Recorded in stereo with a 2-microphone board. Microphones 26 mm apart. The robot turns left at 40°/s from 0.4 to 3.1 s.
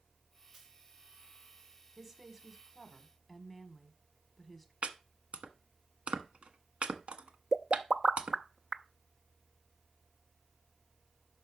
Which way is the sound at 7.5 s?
20° right (ahead or behind).